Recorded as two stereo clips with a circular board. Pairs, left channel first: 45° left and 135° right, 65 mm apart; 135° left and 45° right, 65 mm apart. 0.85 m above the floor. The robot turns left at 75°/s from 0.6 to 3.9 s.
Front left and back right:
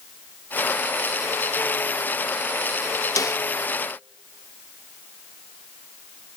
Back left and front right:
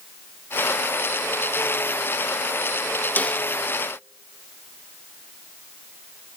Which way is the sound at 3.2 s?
75° left.